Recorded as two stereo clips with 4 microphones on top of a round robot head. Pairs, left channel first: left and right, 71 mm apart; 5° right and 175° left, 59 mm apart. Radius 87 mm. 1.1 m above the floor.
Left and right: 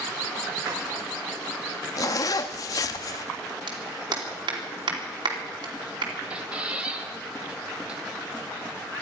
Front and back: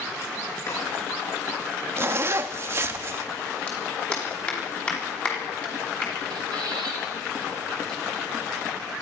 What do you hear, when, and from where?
0.7 s a drawer: 50° right, 6 m
2.0 s a zipper: 130° left, 0.7 m
3.7 s a clap: 80° right, 3 m
6.3 s a squeak: 165° right, 1.7 m